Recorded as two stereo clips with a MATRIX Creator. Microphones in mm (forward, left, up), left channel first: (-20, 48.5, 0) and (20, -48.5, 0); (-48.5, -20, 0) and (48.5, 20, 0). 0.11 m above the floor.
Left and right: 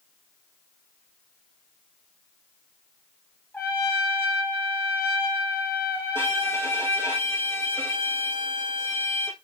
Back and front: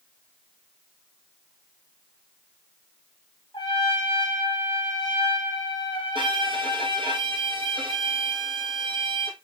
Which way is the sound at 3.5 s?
Straight behind.